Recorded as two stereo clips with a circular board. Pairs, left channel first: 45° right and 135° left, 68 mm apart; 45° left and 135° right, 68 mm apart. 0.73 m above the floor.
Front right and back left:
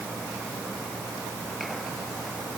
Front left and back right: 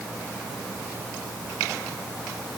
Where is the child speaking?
I don't hear a child speaking.